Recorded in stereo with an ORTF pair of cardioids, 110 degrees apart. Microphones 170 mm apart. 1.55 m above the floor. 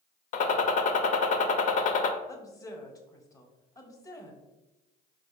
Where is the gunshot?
50° left, 0.5 m.